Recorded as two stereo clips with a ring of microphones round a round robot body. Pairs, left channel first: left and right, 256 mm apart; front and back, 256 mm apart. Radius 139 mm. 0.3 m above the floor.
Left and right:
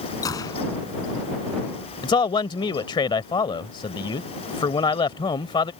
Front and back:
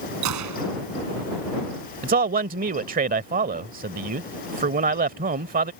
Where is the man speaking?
150° left.